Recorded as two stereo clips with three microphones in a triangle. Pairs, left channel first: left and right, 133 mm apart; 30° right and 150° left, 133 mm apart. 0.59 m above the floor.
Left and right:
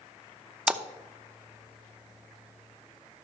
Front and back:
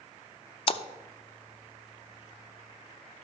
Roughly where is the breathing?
No breathing in this recording.